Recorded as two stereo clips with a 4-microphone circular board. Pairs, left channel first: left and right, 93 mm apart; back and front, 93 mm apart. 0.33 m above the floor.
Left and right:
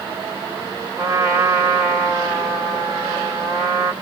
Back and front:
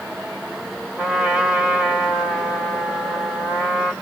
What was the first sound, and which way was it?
A trumpet, 70° right.